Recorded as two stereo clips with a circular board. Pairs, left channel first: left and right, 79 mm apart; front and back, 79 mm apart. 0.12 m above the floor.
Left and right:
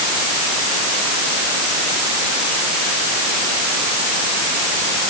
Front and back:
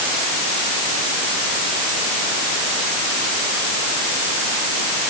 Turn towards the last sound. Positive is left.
No sound to turn to.